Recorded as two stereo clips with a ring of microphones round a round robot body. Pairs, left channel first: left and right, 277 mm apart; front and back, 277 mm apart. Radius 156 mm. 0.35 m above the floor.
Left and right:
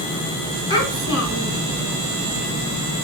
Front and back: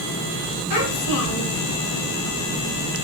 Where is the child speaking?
15° right, 3 m.